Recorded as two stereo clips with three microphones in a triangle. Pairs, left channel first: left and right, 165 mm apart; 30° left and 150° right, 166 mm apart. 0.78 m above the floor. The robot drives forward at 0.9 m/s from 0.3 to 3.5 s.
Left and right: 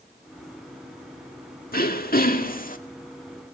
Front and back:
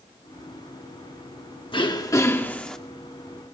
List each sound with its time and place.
1.7 s throat clearing: 85° left, 1.8 m; by 2.8 s 115° left, 2.0 m